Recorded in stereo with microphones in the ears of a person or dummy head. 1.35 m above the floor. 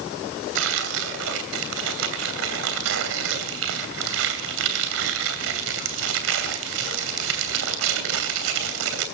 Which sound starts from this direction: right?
Tearing paper, at 0.6 s.